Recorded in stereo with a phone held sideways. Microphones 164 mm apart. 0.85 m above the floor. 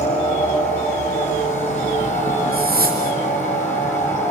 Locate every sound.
0.0 s a machine running: 45° left (ahead or behind), 5.5 m
2.5 s a whoosh: 65° right (ahead or behind), 3 m